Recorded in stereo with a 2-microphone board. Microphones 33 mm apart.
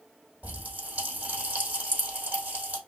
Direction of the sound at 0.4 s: 45° right (ahead or behind).